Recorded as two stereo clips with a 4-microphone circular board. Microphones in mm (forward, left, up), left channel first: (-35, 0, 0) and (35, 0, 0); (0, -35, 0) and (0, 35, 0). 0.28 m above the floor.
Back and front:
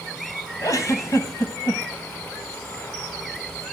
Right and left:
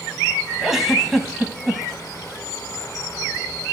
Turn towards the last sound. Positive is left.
turn(degrees=175)